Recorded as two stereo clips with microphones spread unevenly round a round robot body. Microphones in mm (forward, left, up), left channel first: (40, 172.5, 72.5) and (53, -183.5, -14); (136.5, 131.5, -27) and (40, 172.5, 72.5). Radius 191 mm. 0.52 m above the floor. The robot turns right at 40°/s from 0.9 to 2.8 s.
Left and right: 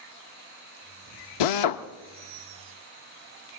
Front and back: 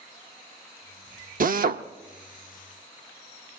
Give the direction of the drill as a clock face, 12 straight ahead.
8 o'clock.